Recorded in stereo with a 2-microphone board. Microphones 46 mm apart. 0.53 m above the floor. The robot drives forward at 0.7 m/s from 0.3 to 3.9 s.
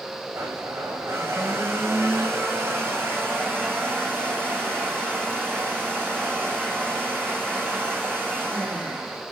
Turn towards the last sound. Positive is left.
turn(degrees=-50)  # may be behind; listen again after turning